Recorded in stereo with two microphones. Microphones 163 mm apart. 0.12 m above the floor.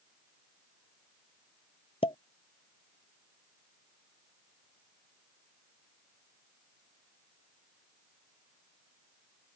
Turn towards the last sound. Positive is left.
turn(degrees=35)  # may be behind; listen again after turning